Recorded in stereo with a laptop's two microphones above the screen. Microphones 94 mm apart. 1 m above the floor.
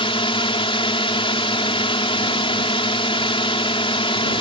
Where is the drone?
75° left (ahead or behind).